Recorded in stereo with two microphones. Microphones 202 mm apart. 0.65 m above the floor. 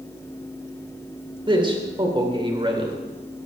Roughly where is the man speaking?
Right.